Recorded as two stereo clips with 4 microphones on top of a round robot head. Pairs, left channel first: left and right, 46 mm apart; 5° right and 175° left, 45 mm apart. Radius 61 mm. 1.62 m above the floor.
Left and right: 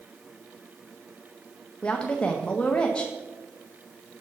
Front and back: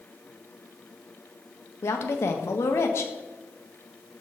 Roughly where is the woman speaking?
Ahead.